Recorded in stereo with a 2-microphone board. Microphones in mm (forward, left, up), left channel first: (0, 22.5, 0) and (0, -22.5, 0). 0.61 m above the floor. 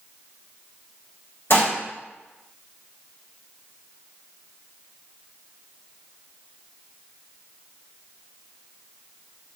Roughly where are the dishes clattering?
Left.